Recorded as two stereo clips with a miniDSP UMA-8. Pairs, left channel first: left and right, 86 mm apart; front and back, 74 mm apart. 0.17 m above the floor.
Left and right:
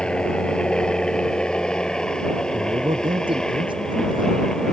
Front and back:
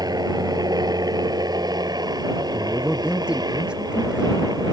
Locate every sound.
0.0 s a helicopter: 170° left
2.5 s a man speaking: 105° right